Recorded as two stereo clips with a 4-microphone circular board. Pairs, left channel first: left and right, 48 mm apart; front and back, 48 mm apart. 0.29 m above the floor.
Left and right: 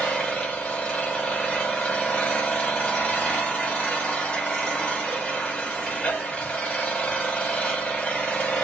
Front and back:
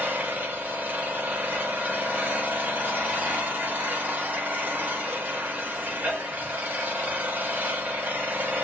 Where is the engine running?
150° left, 1.6 m.